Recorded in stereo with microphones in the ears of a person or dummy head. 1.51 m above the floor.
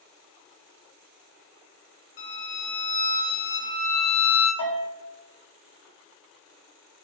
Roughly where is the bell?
Left.